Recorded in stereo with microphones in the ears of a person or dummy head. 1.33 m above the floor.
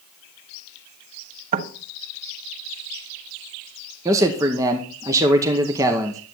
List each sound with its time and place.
1.5 s knocking: 50° right (ahead or behind), 1.4 m
4.0 s a man speaking: 15° right (ahead or behind), 0.8 m